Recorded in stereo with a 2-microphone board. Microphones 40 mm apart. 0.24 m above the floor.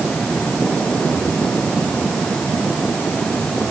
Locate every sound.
Only background noise.